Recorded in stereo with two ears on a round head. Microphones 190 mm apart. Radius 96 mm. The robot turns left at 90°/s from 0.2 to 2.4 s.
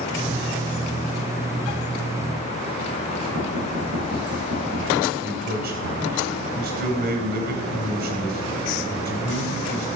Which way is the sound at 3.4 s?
85° right.